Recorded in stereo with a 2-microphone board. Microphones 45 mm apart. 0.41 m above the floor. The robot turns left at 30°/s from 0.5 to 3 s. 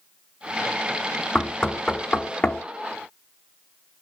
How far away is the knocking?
About 0.7 m.